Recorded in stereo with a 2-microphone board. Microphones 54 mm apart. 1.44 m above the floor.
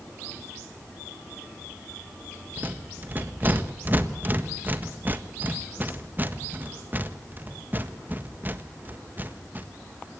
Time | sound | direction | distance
2.6 | a rattle | 35° right (ahead or behind) | 1.6 m